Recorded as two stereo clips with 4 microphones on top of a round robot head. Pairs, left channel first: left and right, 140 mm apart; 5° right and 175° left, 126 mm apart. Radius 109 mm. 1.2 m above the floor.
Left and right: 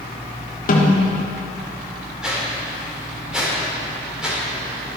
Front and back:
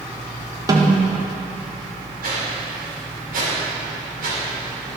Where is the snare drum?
110° left, 1.6 m.